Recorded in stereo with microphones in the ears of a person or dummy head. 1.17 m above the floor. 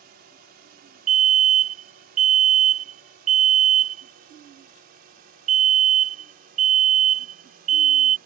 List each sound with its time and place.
0.0 s a drone: 50° right (ahead or behind)
1.1 s a fire alarm: 30° right (ahead or behind)